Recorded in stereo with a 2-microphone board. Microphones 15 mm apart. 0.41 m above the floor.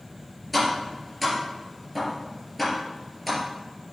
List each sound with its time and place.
0.5 s tapping: 5° right (ahead or behind), 3.5 m